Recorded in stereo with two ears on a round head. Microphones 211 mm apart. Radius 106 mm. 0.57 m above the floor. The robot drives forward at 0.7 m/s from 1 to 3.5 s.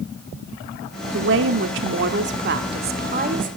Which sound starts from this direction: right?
A woman speaking, at 1.1 s.